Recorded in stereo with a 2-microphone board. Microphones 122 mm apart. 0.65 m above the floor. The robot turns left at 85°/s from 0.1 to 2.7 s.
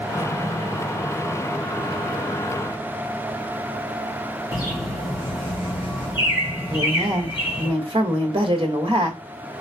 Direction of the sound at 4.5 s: 35° left (ahead or behind).